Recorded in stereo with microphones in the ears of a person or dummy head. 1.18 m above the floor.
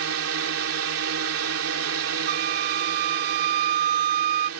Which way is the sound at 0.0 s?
70° right (ahead or behind).